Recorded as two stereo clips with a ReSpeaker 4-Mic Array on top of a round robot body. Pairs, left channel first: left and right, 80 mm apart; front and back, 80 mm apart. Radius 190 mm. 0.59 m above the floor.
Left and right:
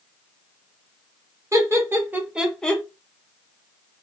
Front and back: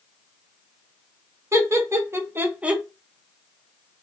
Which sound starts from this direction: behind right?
Laughter, at 1.5 s.